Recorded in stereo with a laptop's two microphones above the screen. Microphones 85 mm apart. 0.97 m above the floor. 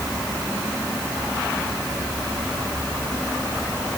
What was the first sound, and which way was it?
Only background noise.